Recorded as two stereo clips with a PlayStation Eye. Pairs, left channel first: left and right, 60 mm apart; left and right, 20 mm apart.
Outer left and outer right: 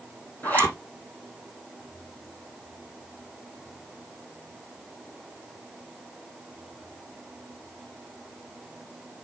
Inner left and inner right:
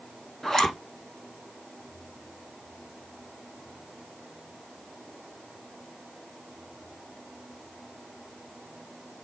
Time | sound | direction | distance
0.4 | a zipper | 30° left (ahead or behind) | 4.5 m